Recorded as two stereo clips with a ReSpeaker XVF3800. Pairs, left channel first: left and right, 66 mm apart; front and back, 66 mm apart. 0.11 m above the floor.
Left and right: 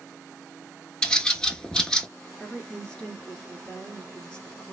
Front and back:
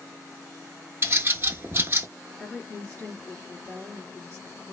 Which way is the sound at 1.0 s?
160° left.